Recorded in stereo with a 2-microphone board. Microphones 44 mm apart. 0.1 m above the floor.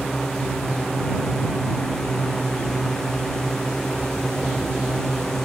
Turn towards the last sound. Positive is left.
turn(degrees=15)  # may be behind; listen again after turning